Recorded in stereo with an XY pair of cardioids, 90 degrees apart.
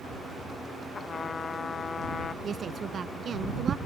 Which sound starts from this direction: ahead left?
A trumpet, at 0.9 s.